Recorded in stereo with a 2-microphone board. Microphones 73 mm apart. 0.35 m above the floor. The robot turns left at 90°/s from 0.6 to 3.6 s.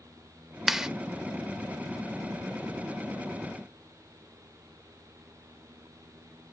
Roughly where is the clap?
Centre.